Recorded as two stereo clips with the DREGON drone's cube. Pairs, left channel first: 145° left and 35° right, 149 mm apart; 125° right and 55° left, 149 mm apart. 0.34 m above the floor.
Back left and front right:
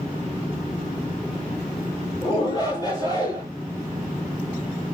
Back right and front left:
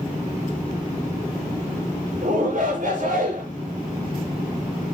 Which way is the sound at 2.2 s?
90° left.